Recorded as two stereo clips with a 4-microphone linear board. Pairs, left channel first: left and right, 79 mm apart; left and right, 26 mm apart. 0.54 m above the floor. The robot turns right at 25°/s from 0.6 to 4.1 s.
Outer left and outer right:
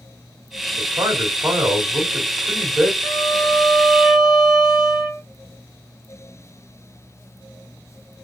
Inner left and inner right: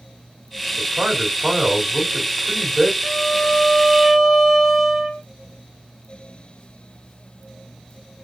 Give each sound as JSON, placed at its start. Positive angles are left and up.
{"t": 0.8, "sound": "a man speaking", "azimuth_deg": -55, "distance_m": 2.5}
{"t": 3.0, "sound": "a violin", "side_deg": 15, "distance_m": 0.9}